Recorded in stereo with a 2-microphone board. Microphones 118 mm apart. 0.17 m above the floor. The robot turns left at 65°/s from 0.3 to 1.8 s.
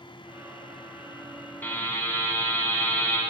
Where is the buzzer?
15° left (ahead or behind), 1.7 m; by 3.2 s 20° left (ahead or behind), 1.7 m.